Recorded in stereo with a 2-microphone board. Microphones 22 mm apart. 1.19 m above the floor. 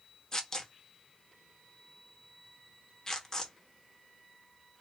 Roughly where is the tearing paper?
Centre.